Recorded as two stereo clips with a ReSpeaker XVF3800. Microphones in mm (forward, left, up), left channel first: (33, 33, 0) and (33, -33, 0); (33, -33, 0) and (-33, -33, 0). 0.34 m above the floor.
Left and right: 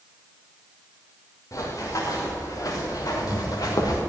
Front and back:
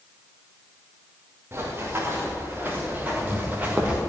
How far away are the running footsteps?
About 4 m.